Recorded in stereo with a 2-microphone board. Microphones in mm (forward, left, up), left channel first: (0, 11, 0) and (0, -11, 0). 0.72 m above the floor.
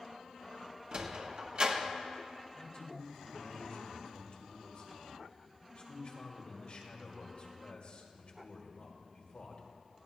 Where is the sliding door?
45° right (ahead or behind), 1.1 m.